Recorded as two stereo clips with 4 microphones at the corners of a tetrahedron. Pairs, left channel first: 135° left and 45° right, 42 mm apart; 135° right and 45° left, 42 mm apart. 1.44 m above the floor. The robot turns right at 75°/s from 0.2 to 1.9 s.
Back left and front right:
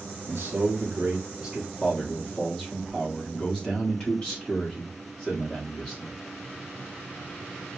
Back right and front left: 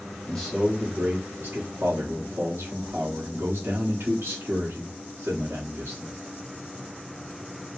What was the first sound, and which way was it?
A man speaking, 60° right.